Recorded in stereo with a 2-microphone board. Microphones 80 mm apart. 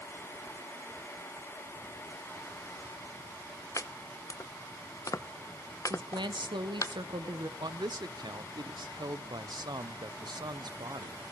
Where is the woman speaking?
75° right (ahead or behind), 1.2 m.